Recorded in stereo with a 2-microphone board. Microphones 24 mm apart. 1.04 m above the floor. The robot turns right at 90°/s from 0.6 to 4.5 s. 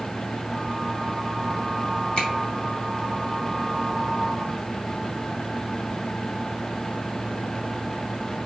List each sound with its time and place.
2.2 s a finger snap: 35° left (ahead or behind), 1.5 m; by 2.3 s 20° left (ahead or behind), 1.5 m